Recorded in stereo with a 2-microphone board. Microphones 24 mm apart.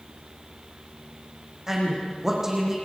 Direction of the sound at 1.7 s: 20° right (ahead or behind).